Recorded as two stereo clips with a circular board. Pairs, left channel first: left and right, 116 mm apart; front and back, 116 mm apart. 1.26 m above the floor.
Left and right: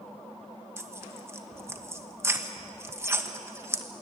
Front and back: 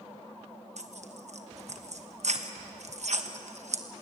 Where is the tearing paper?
160° right, 1.2 m.